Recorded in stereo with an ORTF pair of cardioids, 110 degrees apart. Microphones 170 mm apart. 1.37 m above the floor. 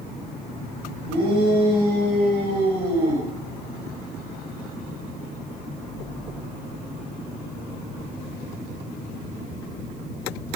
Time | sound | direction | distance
1.1 | a shout | 65° right | 7.5 m